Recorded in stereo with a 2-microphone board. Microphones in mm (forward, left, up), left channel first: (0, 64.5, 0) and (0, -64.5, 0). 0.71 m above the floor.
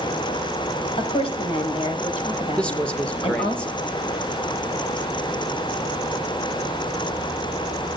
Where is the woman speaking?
45° left (ahead or behind), 4 m.